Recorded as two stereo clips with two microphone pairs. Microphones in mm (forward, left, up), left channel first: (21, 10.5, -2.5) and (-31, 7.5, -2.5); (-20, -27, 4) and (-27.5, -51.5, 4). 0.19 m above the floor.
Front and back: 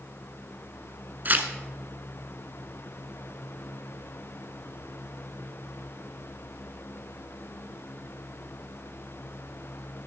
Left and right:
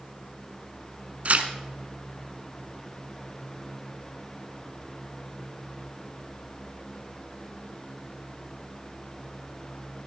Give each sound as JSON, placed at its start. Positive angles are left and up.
{"t": 1.2, "sound": "tearing paper", "azimuth_deg": -130, "distance_m": 1.0}